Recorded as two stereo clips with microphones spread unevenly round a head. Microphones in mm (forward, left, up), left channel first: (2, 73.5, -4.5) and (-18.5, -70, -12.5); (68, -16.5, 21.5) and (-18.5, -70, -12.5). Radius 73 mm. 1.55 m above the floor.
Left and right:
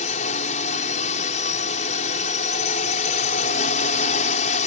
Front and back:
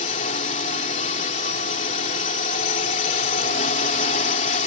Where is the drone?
35° left.